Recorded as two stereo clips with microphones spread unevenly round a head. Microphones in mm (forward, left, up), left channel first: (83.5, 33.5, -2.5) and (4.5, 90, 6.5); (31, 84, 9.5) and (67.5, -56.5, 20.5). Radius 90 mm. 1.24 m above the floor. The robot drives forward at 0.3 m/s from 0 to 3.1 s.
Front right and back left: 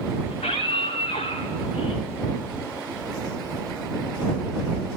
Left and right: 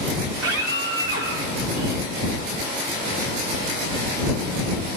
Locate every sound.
0.3 s a scream: 95° right, 4 m; by 2.0 s 100° right, 4 m